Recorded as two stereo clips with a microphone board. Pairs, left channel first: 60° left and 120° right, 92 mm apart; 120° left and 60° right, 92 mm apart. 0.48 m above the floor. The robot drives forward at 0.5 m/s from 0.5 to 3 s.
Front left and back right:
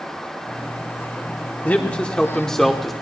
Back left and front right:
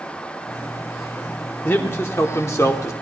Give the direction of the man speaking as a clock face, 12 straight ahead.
9 o'clock.